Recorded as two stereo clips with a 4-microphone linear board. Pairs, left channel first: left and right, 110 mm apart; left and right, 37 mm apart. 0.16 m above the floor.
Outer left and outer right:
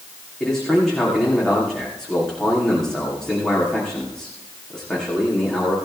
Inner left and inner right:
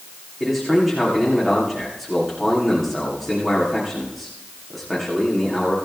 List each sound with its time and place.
0.4 s a man speaking: 5° left (ahead or behind), 9 m